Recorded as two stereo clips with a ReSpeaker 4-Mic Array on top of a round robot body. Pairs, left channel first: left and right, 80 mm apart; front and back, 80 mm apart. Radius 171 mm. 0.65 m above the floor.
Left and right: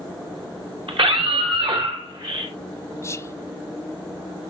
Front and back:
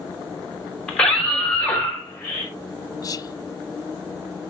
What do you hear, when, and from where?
0.9 s a scream: 80° right, 4.5 m; by 2.5 s 70° right, 5.5 m
3.0 s whispering: 35° left, 0.8 m